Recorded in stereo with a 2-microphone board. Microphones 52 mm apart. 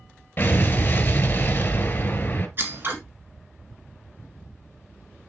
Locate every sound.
0.4 s an explosion: 35° left (ahead or behind), 1.1 m
2.6 s scissors: 45° right (ahead or behind), 2 m